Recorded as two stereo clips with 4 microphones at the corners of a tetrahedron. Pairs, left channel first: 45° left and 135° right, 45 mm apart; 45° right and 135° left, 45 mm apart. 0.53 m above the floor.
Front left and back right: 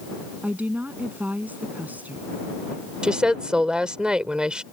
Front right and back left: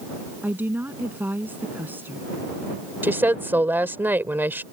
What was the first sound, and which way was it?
A woman speaking, 175° left.